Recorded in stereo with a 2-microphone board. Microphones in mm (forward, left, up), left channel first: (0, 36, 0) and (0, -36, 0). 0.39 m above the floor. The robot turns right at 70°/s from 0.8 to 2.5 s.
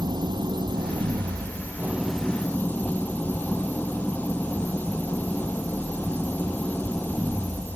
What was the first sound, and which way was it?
An engine running, 95° right.